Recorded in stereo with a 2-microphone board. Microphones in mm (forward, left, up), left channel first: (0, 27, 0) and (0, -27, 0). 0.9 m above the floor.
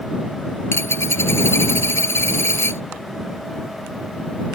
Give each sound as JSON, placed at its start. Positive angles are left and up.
{"t": 0.7, "sound": "a dropped coin", "side_deg": 50}